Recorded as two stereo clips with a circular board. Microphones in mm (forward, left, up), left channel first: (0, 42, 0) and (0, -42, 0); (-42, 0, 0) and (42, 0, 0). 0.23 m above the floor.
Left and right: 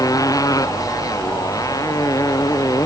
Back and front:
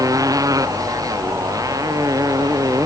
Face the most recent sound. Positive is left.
turn(degrees=45)